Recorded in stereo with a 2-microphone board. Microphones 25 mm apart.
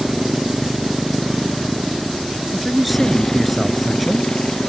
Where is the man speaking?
Centre (ahead or behind).